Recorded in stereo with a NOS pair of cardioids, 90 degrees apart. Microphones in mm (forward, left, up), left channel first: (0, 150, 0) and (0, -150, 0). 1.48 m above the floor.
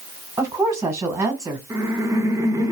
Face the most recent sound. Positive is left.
turn(degrees=-10)